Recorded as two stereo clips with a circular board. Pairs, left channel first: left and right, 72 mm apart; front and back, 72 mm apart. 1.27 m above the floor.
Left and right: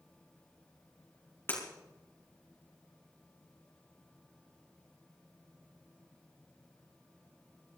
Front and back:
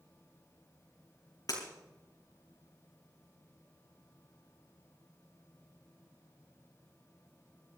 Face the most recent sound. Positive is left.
turn(degrees=30)